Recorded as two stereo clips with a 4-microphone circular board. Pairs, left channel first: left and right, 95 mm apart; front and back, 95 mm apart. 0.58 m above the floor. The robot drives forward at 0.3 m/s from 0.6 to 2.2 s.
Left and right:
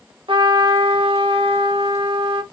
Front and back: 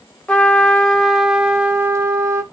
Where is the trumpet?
80° right, 0.7 m; by 2.4 s 120° right, 0.7 m.